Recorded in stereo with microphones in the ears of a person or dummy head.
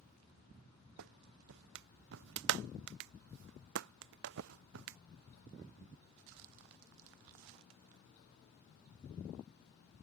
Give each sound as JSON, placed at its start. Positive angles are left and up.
{"t": 1.0, "sound": "a clap", "side_deg": -60}